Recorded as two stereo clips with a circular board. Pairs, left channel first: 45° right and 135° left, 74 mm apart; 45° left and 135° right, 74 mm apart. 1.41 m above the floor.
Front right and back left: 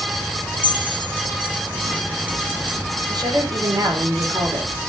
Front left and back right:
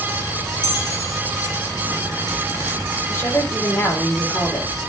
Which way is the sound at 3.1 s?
105° left.